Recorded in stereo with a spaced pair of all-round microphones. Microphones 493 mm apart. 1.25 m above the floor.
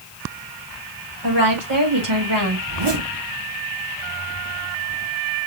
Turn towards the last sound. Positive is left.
turn(degrees=-55)  # may be behind; listen again after turning